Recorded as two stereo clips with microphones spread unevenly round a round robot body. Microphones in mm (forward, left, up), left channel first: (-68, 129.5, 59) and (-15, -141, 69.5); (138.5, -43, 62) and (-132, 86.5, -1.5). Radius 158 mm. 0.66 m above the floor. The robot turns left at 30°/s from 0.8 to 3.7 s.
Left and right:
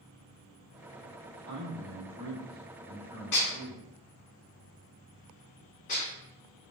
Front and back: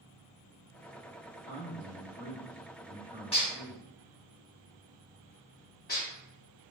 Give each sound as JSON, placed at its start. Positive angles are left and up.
{"t": 1.3, "sound": "a man speaking", "azimuth_deg": -35, "distance_m": 1.3}
{"t": 3.3, "sound": "dishes clattering", "azimuth_deg": 50, "distance_m": 1.0}